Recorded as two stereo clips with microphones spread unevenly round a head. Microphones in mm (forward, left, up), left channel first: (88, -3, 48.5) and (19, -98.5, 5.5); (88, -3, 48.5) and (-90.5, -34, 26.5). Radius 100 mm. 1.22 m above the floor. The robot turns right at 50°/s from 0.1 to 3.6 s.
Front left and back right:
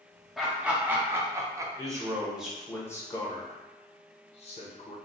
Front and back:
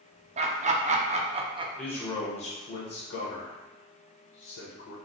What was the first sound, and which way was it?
Laughter, 170° left.